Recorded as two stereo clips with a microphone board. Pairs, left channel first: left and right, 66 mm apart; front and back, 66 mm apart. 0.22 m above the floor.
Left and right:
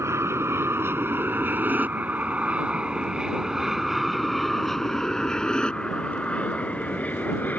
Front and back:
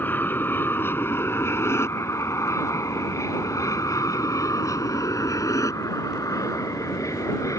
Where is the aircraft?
55° right; by 7.6 s 30° left.